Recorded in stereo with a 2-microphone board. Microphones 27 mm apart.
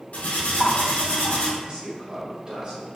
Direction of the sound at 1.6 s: 35° right (ahead or behind).